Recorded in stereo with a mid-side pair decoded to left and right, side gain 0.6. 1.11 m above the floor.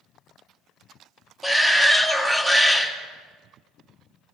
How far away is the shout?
About 2 m.